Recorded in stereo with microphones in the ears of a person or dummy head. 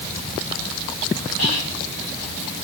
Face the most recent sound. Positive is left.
turn(degrees=85)